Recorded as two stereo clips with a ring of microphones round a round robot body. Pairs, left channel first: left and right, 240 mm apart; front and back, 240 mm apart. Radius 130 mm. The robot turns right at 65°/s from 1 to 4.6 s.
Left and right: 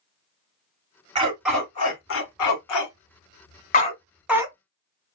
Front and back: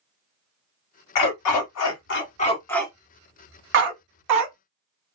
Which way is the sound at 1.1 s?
20° right.